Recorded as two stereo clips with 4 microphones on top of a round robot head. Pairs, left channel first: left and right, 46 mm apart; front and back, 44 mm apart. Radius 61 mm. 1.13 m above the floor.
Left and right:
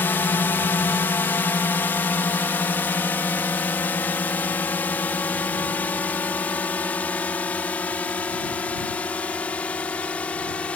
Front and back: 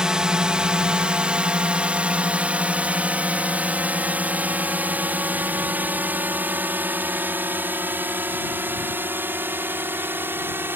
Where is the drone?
115° left; by 10.8 s 155° left.